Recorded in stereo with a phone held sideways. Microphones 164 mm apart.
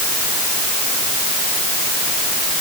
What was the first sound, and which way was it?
Only background noise.